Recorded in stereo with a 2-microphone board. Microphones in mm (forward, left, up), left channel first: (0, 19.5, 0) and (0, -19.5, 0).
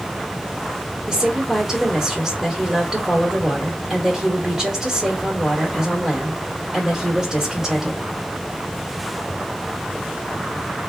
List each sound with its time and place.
1.1 s a woman speaking: 20° right (ahead or behind), 1.9 m